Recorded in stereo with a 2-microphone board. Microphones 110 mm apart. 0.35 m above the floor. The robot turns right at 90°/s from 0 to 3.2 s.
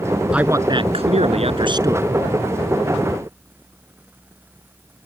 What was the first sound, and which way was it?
A man speaking, 170° right.